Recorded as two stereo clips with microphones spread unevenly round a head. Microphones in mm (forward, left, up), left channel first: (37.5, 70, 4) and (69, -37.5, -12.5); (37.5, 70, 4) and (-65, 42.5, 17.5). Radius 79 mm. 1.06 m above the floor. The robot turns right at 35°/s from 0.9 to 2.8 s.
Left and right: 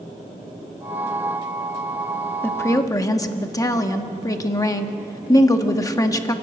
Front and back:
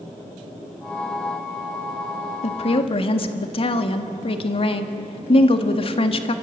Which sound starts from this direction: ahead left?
A woman speaking, at 2.4 s.